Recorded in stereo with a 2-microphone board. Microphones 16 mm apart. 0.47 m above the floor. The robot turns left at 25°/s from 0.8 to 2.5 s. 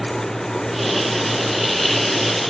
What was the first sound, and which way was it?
Only background noise.